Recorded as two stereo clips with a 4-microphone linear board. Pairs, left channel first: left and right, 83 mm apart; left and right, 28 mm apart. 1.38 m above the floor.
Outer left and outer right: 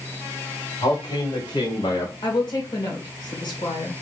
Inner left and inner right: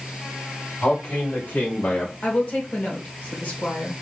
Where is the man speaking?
85° left, 3 m; by 2.1 s 65° left (ahead or behind), 1.5 m.